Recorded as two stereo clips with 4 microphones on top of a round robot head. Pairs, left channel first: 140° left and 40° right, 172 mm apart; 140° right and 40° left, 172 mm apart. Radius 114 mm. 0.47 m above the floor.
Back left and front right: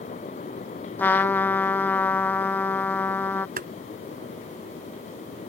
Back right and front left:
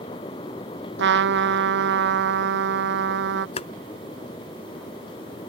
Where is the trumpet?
60° left.